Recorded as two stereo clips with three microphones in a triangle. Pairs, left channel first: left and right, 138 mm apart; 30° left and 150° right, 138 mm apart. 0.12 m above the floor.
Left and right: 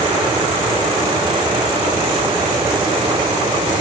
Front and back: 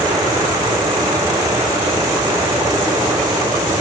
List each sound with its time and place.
Only background noise.